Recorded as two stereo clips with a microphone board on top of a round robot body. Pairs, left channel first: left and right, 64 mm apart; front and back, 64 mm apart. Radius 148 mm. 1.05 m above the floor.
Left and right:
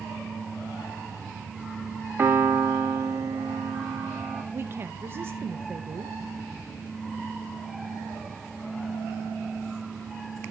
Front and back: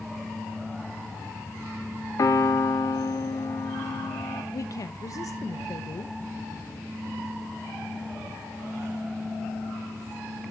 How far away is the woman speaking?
About 0.8 m.